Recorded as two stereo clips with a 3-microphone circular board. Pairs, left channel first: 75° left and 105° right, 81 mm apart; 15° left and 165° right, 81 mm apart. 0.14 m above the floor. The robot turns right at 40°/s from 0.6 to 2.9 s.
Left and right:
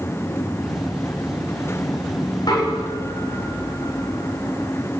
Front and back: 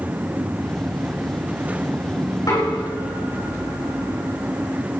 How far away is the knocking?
About 8 m.